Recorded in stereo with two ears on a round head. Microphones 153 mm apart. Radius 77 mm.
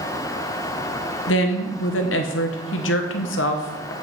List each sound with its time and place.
1.3 s a woman speaking: 75° left (ahead or behind), 1.0 m